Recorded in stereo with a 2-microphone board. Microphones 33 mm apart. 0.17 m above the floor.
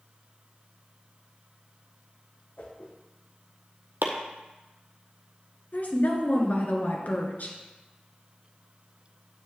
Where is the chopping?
85° right, 1.4 m.